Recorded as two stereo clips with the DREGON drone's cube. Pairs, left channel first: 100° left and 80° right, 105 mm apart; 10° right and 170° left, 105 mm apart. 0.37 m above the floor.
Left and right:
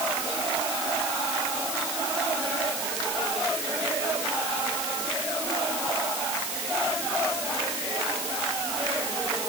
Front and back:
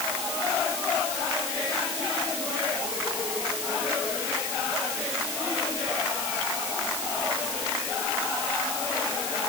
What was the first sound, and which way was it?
Only background noise.